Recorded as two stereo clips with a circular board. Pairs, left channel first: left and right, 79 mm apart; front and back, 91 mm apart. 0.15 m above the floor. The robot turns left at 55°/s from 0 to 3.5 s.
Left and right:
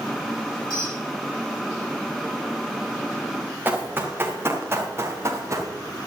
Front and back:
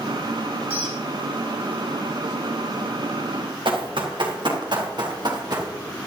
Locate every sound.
0.7 s a squeak: 115° left, 4.5 m; by 1.0 s 95° left, 4.5 m
3.6 s running footsteps: 155° right, 3.5 m; by 5.7 s 135° right, 2.5 m